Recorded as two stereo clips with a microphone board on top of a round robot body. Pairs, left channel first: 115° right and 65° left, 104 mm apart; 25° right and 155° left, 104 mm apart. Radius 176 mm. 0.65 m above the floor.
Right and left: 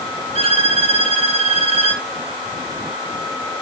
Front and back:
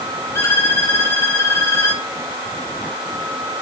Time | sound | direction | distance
0.3 | a violin | 45° left | 1.9 m